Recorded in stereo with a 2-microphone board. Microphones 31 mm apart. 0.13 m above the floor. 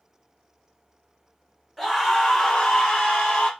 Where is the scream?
5° right (ahead or behind), 1.1 m; by 3.5 s 40° left (ahead or behind), 1.4 m.